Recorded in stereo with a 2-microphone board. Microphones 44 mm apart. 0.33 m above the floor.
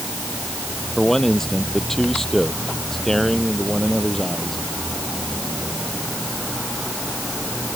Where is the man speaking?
10° left (ahead or behind).